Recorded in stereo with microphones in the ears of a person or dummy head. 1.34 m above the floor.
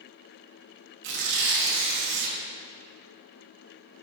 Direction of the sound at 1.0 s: 75° right (ahead or behind).